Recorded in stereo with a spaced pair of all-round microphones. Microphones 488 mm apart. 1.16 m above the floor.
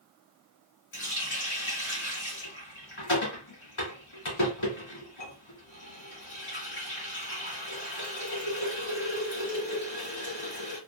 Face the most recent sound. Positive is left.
turn(degrees=75)  # may be behind; listen again after turning